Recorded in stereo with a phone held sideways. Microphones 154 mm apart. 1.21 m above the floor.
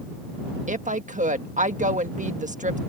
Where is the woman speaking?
55° right (ahead or behind).